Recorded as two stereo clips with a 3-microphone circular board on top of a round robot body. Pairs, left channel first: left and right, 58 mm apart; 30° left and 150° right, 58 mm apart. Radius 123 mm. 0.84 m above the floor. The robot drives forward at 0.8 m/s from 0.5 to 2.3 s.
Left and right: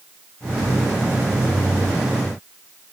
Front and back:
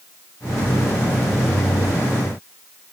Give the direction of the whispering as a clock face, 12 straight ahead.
No whispering in this recording.